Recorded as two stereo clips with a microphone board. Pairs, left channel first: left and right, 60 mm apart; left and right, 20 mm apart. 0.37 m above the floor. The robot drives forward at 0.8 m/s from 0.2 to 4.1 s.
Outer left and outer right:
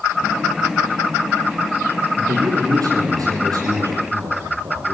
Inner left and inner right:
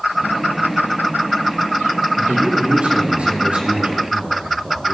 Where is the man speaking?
80° right, 7 m.